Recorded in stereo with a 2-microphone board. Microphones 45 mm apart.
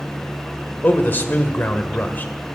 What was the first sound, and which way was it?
A man speaking, 50° left (ahead or behind).